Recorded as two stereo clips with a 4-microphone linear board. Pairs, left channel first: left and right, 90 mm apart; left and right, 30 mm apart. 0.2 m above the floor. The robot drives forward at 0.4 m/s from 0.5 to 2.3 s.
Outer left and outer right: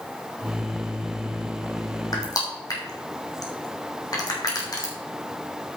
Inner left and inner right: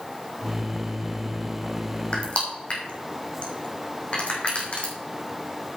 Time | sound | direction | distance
2.1 | crushing | 45° left (ahead or behind) | 2.5 m